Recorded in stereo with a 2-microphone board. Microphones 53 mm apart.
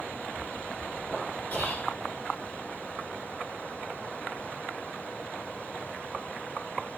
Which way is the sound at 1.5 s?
35° left (ahead or behind).